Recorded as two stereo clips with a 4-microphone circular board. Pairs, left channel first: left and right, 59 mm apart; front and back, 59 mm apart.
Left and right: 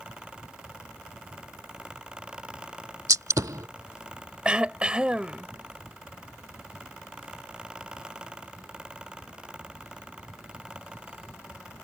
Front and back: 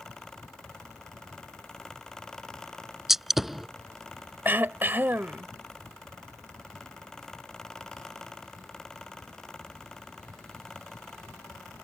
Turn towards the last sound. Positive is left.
turn(degrees=-155)